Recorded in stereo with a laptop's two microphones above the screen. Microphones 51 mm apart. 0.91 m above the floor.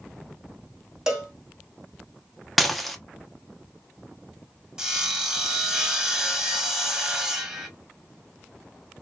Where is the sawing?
15° right (ahead or behind), 0.9 m.